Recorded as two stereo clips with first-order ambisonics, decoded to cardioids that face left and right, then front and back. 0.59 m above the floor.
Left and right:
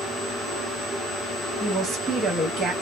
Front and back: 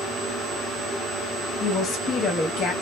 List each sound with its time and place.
1.6 s a woman speaking: 45° right, 0.9 m